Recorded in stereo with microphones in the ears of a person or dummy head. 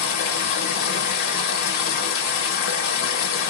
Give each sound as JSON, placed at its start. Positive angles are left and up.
{"t": 0.0, "sound": "running water", "side_deg": 60, "distance_m": 1.0}